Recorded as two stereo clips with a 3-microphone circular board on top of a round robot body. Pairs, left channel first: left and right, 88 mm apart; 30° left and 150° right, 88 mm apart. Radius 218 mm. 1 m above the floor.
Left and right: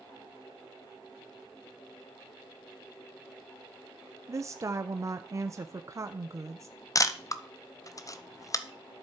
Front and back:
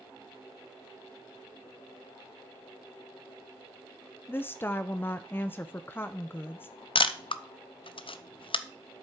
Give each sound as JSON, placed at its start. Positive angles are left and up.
{"t": 4.3, "sound": "a woman speaking", "azimuth_deg": -40, "distance_m": 0.6}
{"t": 7.0, "sound": "a camera shutter", "azimuth_deg": 40, "distance_m": 0.8}